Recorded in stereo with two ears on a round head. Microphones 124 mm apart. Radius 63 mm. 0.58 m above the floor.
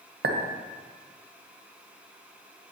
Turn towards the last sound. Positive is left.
turn(degrees=-75)  # may be behind; listen again after turning